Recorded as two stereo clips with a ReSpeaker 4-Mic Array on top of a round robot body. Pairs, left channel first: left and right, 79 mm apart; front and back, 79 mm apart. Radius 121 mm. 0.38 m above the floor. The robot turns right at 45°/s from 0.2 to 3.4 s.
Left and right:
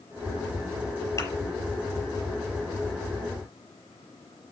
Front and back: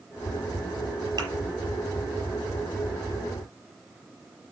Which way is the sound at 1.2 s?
140° left.